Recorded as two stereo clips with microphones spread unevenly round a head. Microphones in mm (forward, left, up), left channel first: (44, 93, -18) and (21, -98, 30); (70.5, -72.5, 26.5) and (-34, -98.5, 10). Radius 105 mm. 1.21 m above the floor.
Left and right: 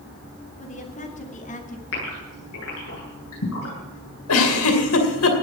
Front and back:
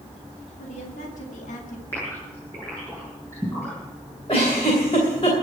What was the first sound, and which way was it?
A woman speaking, 30° left.